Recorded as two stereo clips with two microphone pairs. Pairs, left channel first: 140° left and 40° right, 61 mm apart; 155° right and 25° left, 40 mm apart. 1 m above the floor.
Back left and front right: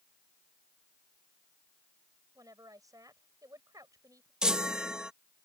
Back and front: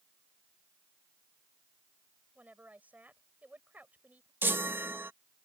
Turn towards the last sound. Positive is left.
turn(degrees=40)